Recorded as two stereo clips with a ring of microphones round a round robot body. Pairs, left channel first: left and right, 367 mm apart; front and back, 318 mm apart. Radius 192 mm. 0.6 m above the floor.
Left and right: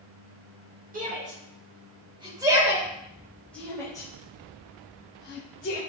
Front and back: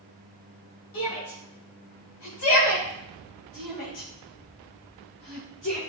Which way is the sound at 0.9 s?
25° right.